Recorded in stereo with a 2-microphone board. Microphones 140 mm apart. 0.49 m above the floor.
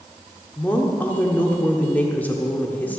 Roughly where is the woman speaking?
Centre.